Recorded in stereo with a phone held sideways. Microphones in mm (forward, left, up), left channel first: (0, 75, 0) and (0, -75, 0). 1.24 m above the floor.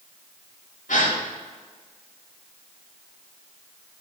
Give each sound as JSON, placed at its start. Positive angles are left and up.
{"t": 0.9, "sound": "a gasp", "side_deg": 65, "distance_m": 2.5}